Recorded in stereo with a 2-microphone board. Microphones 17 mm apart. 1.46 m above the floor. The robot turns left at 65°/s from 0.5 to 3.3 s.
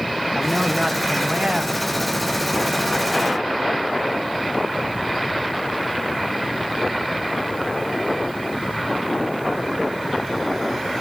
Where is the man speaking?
15° right, 1.1 m; by 1.8 s 95° right, 1.1 m.